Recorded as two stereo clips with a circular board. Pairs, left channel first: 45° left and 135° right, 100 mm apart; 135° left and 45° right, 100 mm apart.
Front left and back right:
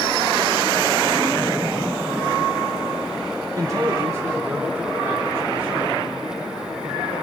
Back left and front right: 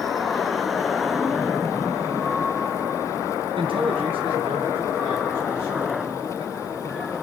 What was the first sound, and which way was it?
A man speaking, 80° right.